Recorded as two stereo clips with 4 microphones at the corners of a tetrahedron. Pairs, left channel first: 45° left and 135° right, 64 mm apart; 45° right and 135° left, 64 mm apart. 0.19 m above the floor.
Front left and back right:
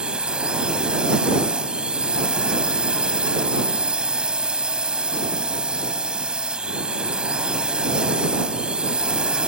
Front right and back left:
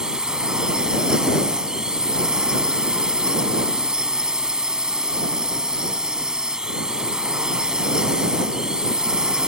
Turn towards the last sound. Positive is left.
turn(degrees=-175)